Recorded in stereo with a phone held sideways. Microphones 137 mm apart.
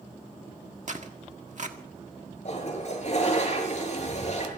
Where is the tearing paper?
60° right (ahead or behind), 1.5 m.